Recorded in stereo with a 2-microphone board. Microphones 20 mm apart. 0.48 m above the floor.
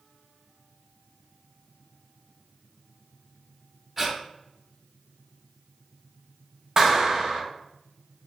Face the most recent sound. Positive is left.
turn(degrees=-30)  # may be behind; listen again after turning